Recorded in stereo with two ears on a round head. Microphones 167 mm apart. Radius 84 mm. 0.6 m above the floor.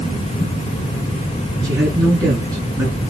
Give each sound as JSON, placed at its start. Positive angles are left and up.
{"t": 1.6, "sound": "a man speaking", "side_deg": -20, "distance_m": 6.5}